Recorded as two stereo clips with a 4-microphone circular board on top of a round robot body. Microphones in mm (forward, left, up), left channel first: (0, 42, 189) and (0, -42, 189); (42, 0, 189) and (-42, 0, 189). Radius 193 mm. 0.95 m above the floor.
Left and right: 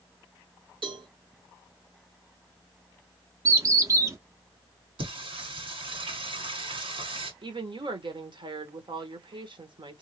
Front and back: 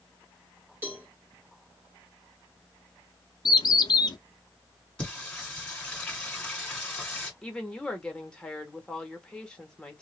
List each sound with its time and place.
0.8 s a cowbell: 115° right, 1.4 m
3.5 s a bird: 40° right, 0.7 m
5.0 s singing: 80° right, 1.8 m
7.4 s a woman speaking: 80° right, 1.3 m